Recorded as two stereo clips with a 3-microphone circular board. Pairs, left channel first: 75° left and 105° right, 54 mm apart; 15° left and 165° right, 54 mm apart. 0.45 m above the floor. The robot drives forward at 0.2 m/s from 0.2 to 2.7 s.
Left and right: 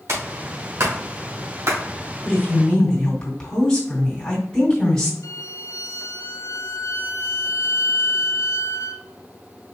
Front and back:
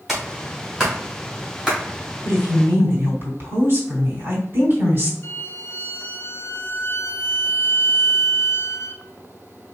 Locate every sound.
0.1 s a clap: 75° right, 2.5 m; by 1.8 s 85° right, 2.5 m
2.2 s a woman speaking: 150° left, 2.5 m; by 5.1 s 155° left, 2.5 m
5.2 s a violin: 60° left, 0.5 m